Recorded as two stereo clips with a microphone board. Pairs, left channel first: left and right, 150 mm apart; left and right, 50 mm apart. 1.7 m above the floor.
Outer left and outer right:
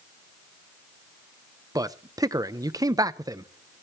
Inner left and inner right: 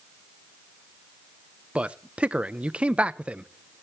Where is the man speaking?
25° right (ahead or behind), 0.6 m.